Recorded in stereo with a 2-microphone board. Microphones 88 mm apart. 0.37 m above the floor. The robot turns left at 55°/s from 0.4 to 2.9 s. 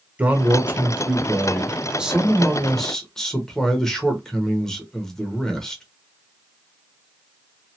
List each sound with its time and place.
0.2 s a man speaking: 20° right (ahead or behind), 0.8 m; by 5.8 s 5° left (ahead or behind), 0.8 m